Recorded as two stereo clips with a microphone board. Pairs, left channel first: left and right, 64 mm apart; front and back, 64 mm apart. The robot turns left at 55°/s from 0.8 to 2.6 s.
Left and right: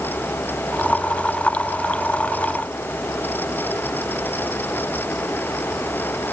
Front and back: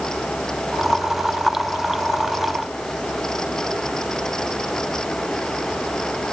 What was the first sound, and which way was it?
Only background noise.